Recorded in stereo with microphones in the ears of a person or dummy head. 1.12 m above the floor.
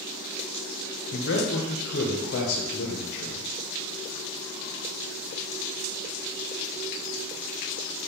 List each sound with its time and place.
1.1 s a man speaking: 60° left (ahead or behind), 0.6 m